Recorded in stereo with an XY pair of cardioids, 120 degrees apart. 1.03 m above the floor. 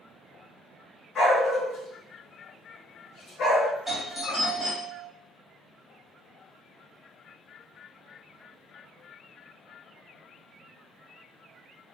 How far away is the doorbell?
About 2.0 m.